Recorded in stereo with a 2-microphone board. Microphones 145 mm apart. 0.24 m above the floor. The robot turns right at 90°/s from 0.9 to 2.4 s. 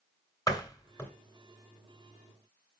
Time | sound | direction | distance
0.5 | a door slam | 25° left (ahead or behind) | 2.5 m